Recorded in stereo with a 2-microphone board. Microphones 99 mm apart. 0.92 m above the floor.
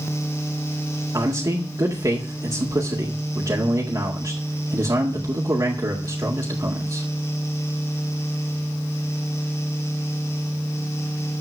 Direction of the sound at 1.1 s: 35° right (ahead or behind).